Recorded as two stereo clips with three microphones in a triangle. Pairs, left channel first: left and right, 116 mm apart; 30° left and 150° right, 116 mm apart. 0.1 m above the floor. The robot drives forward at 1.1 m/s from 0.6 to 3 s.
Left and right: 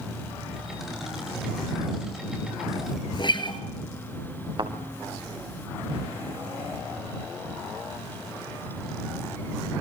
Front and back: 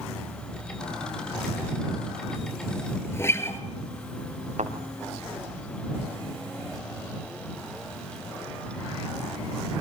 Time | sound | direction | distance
3.1 | a guitar | 85° left | 1.8 m
4.6 | a thud | 135° right | 4 m